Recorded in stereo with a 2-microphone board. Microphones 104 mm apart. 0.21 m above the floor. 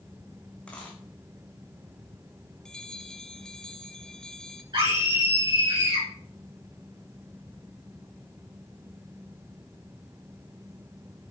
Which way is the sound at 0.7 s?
10° left (ahead or behind).